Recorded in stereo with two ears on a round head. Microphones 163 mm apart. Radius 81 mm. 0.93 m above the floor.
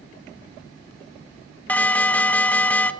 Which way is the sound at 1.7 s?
10° left (ahead or behind).